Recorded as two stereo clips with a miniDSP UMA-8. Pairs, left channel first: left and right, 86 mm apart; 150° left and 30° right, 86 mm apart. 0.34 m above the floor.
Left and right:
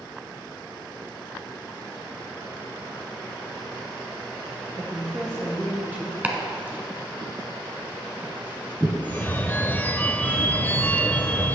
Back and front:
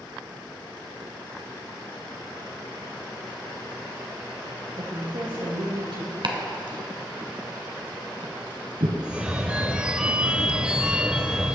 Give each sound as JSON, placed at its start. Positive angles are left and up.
{"t": 4.8, "sound": "a woman speaking", "azimuth_deg": -40, "distance_m": 4.0}
{"t": 6.2, "sound": "chopping", "azimuth_deg": -20, "distance_m": 1.2}
{"t": 9.0, "sound": "a phone ringing", "azimuth_deg": 40, "distance_m": 0.6}